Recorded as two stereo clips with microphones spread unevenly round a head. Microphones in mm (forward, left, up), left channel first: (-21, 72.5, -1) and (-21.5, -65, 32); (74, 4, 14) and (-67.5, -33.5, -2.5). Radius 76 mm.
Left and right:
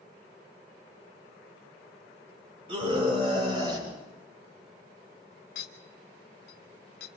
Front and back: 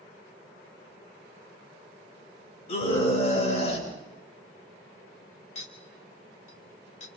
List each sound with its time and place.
2.7 s a scream: 30° right, 7 m; by 3.9 s 25° right, 7.5 m
5.5 s a clink: 60° left, 2.5 m